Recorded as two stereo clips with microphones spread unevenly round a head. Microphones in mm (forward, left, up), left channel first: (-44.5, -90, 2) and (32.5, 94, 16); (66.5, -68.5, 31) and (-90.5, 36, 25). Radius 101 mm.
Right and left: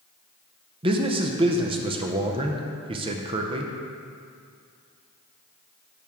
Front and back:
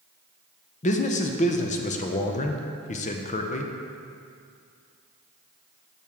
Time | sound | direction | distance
0.8 | a man speaking | 5° left | 0.6 m